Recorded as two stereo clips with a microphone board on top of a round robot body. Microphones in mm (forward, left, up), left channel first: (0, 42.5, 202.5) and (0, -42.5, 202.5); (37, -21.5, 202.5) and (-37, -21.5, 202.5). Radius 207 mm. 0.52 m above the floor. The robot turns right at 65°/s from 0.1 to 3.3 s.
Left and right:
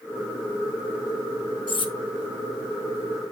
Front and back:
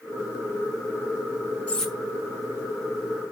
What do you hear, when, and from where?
1.7 s cutlery clinking: 75° left, 1.2 m; by 1.9 s 90° left, 1.2 m